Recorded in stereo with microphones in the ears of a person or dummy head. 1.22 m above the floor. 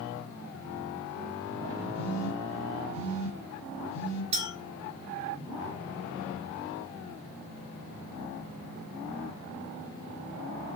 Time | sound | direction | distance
1.9 | a phone buzzing | 80° left | 1.1 m
4.3 | a clink | 30° right (ahead or behind) | 0.8 m